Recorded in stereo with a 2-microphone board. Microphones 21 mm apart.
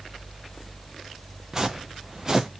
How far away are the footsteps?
About 0.5 m.